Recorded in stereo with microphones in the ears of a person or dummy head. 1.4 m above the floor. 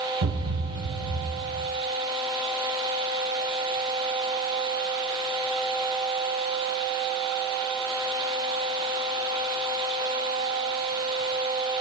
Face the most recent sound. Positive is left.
turn(degrees=-60)  # may be behind; listen again after turning